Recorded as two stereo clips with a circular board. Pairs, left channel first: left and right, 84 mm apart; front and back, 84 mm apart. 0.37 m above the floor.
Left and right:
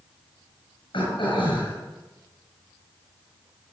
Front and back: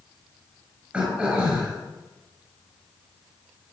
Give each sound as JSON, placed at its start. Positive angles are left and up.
{"t": 0.9, "sound": "throat clearing", "azimuth_deg": 105, "distance_m": 6.5}